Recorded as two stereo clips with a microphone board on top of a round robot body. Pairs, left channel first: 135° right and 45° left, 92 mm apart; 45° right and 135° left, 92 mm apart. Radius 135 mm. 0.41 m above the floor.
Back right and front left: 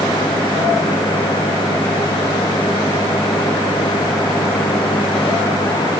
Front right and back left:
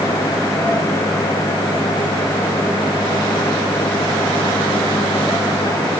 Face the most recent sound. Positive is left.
No sound to turn to.